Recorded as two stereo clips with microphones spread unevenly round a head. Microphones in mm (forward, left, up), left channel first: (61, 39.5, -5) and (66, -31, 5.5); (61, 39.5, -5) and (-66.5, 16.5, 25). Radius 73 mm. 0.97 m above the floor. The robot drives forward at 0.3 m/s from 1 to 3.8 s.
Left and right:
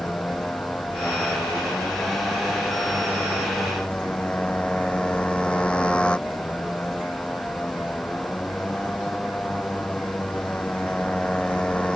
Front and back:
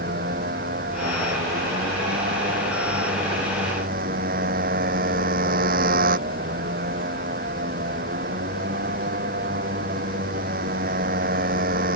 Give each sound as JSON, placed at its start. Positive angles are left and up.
{"t": 0.0, "sound": "a motorcycle", "azimuth_deg": 175}